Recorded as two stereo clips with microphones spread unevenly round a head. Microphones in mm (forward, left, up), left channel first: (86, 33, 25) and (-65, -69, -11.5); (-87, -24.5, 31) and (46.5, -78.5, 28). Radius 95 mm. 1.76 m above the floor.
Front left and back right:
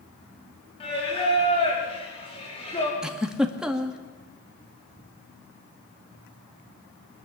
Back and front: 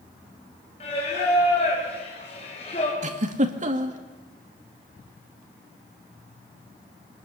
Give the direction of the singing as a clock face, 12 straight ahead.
9 o'clock.